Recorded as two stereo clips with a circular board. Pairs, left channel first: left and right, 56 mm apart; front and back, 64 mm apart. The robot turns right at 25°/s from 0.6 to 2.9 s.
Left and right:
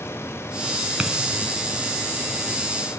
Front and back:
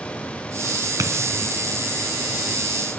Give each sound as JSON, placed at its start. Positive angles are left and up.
{"t": 1.0, "sound": "a dropped coin", "azimuth_deg": -165, "distance_m": 3.0}